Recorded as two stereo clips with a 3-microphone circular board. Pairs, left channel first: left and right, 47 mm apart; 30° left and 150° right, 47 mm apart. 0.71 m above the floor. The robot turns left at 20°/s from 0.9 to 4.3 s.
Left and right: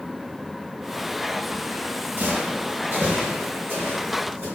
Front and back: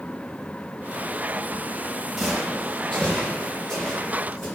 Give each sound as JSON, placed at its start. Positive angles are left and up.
{"t": 2.2, "sound": "footsteps", "azimuth_deg": -60, "distance_m": 0.9}